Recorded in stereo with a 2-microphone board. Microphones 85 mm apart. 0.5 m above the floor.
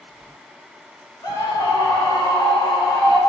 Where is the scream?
45° left (ahead or behind), 1.8 m; by 3.2 s 65° left (ahead or behind), 2.5 m.